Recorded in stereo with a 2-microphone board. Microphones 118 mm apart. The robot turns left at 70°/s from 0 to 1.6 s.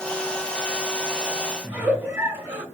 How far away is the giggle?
About 2.5 m.